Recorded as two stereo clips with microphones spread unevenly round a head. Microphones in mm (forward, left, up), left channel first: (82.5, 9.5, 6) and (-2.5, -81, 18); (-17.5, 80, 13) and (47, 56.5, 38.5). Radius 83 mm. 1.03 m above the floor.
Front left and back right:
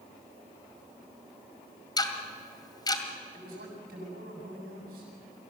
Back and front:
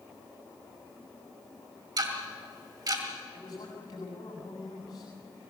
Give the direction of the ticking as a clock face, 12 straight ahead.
12 o'clock.